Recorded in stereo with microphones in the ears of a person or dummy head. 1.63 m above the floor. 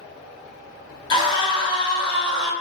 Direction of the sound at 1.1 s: 25° left (ahead or behind).